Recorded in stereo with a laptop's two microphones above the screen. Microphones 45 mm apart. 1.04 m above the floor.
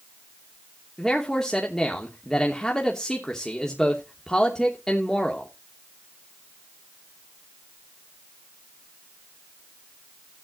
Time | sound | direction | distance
1.0 | a man speaking | 15° left (ahead or behind) | 2.5 m